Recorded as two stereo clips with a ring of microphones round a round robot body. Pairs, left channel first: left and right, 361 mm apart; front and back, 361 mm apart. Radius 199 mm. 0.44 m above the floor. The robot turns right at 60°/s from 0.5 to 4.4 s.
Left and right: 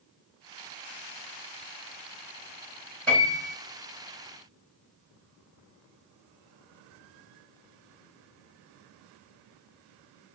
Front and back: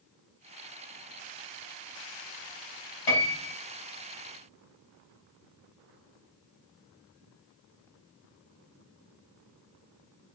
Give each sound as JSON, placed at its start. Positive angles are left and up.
{"t": 3.1, "sound": "a piano", "azimuth_deg": 5, "distance_m": 3.5}